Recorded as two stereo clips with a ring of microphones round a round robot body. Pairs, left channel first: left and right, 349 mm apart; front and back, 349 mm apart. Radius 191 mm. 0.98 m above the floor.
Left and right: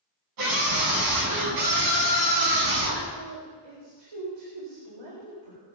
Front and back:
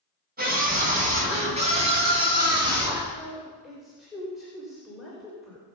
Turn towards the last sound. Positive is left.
turn(degrees=-90)